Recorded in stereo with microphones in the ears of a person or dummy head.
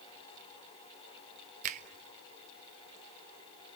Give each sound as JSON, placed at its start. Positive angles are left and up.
{"t": 1.6, "sound": "a finger snap", "side_deg": -45, "distance_m": 1.2}